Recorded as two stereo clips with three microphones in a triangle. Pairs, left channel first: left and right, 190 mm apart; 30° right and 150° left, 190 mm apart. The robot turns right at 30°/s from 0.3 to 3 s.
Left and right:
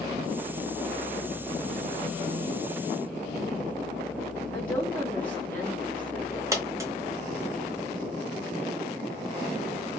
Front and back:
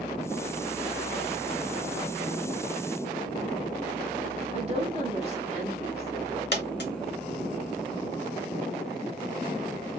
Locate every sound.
4.5 s a woman speaking: 165° left, 1.0 m
6.5 s a dropped coin: 15° right, 0.7 m